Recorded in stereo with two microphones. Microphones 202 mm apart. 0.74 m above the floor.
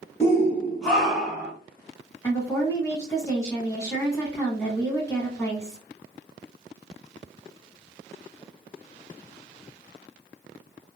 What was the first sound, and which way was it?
A shout, 15° left (ahead or behind).